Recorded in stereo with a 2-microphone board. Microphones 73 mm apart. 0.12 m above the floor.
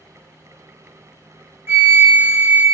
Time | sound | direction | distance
1.7 | a flute | 35° right (ahead or behind) | 0.7 m